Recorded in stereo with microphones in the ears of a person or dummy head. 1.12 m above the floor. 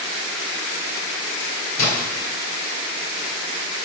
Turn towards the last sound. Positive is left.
turn(degrees=70)  # may be behind; listen again after turning